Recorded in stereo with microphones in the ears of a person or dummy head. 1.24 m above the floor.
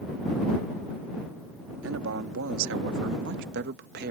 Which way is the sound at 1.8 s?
70° right (ahead or behind).